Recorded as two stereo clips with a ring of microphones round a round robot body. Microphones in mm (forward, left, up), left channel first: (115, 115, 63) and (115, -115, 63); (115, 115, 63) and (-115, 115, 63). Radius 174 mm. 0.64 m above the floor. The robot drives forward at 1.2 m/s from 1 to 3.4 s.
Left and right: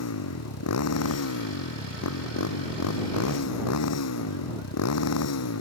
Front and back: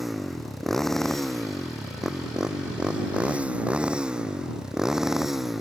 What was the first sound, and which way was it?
A motorcycle, 90° left.